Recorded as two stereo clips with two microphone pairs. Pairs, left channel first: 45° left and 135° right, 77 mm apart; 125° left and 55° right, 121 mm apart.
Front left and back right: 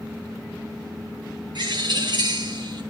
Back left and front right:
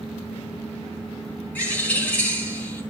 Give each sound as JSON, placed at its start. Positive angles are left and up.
{"t": 1.6, "sound": "a bird", "azimuth_deg": -160, "distance_m": 4.5}